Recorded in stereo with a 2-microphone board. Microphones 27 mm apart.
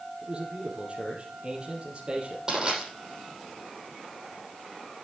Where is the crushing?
25° right (ahead or behind), 6 m.